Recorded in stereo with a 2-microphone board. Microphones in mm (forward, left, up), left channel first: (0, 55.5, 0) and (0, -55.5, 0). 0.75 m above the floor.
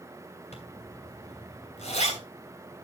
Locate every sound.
0.5 s a zipper: 80° left, 3 m